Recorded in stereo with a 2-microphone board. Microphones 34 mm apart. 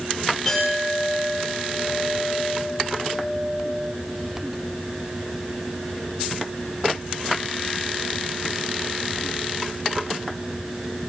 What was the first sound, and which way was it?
A clink, 5° left (ahead or behind).